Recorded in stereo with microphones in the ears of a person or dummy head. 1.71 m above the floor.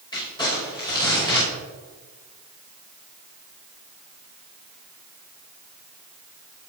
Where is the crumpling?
25° left (ahead or behind), 5.5 m.